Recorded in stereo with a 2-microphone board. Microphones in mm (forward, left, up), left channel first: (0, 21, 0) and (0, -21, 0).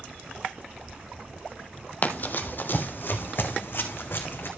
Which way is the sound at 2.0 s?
40° left (ahead or behind).